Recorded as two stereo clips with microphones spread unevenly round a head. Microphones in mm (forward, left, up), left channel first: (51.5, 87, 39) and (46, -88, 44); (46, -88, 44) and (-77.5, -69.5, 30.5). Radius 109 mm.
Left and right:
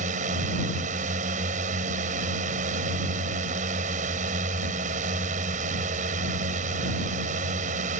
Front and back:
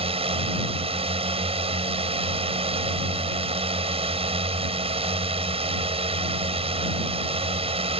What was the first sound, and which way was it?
A drone, 150° right.